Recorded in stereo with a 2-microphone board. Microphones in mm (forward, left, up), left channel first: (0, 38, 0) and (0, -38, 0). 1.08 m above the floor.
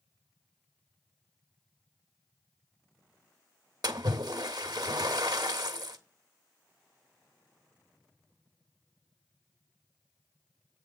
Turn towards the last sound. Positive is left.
turn(degrees=-65)  # may be behind; listen again after turning